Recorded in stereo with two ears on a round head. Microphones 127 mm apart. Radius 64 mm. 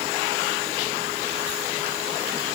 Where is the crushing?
No crushing in this recording.